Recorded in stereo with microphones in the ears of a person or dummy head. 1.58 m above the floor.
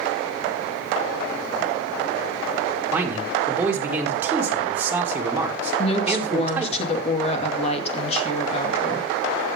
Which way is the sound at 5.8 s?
40° left (ahead or behind).